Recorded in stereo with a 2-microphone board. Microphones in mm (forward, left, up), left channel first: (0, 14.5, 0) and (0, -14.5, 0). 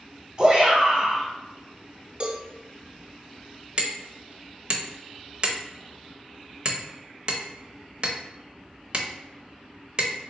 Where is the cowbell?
40° right (ahead or behind), 0.8 m.